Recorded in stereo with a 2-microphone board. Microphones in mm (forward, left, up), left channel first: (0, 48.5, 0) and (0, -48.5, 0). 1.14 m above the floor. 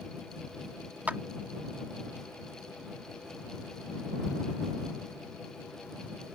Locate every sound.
1.1 s a clap: 20° right (ahead or behind)